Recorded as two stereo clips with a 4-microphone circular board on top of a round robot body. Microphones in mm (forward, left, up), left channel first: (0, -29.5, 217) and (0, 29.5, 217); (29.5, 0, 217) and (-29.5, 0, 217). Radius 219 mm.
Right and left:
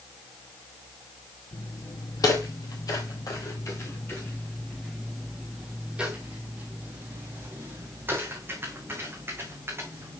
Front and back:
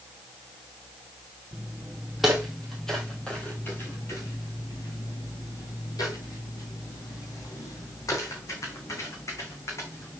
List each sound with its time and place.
1.5 s footsteps: 100° right, 1.7 m; by 10.2 s 40° left, 3 m